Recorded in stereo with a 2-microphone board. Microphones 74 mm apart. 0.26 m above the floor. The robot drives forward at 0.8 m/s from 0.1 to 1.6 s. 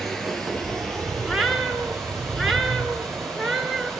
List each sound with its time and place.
0.0 s running water: 5° left (ahead or behind), 1.8 m
1.2 s a cat meowing: centre (ahead or behind), 0.9 m